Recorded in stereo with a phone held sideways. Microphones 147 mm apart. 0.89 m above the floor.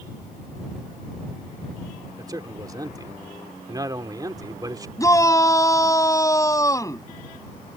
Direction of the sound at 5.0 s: 20° left (ahead or behind).